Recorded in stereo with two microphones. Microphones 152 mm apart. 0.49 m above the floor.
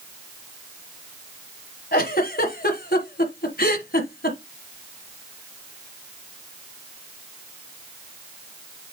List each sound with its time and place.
1.9 s a giggle: 85° left, 1.3 m